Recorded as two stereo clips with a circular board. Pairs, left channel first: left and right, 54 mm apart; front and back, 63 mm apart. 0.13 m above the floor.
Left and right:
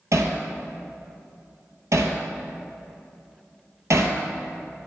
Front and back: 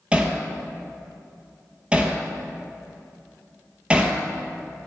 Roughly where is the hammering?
Right.